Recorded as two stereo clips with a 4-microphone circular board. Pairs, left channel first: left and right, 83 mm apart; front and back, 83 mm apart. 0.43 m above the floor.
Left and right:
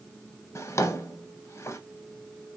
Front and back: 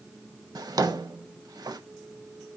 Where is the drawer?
140° left, 0.6 m.